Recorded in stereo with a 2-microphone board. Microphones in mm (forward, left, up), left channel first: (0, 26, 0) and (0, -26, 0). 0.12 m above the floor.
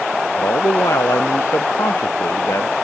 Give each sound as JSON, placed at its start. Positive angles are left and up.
{"t": 0.4, "sound": "a man speaking", "side_deg": 80}